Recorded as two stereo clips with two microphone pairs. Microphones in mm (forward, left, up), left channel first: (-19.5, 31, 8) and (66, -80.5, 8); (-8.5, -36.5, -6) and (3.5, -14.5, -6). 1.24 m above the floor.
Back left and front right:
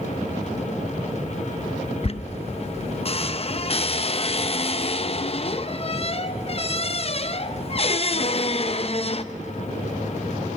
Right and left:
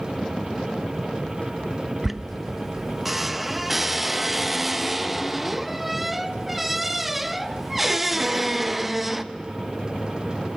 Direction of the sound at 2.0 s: 145° left.